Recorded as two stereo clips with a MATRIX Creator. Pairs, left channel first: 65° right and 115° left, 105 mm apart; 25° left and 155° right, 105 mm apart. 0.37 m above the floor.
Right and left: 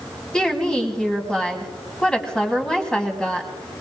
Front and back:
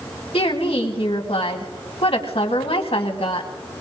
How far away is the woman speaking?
About 2.5 m.